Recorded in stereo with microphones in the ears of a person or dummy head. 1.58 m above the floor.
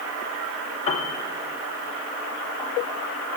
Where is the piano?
35° left (ahead or behind), 0.9 m.